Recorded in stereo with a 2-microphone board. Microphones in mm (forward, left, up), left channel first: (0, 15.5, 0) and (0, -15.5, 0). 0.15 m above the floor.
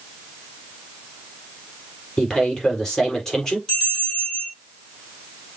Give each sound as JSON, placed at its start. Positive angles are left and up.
{"t": 2.2, "sound": "a man speaking", "side_deg": 15, "distance_m": 4.0}
{"t": 3.7, "sound": "a bell", "side_deg": 20, "distance_m": 4.0}